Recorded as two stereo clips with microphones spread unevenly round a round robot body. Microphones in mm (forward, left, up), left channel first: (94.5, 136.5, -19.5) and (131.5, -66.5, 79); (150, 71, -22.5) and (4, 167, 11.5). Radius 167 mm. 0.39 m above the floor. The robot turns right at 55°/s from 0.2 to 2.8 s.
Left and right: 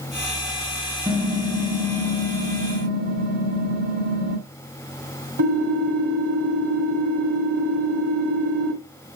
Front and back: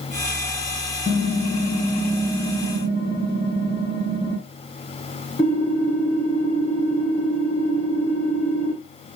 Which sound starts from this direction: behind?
Typing on a keyboard, at 1.1 s.